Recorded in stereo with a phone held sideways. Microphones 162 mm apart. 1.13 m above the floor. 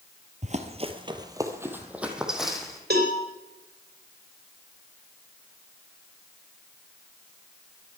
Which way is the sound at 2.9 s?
80° right.